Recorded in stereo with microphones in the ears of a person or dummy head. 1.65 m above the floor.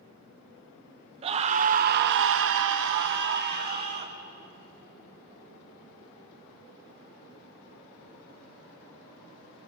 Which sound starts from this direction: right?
A scream, at 1.2 s.